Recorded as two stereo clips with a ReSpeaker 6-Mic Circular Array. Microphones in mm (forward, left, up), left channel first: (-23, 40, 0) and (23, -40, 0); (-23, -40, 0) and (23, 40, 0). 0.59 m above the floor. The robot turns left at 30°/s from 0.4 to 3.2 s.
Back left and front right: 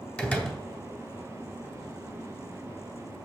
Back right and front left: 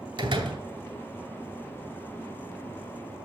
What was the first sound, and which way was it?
A door slam, 45° left.